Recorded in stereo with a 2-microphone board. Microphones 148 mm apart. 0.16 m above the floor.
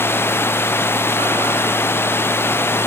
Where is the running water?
15° left (ahead or behind).